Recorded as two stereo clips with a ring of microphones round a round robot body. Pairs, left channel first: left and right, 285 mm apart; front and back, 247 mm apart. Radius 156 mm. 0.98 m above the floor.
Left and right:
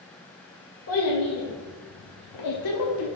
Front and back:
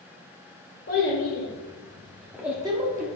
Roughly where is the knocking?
I don't hear knocking.